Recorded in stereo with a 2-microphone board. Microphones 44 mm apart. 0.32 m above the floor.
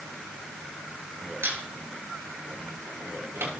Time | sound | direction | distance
1.4 | a squeak | 65° right (ahead or behind) | 3.5 m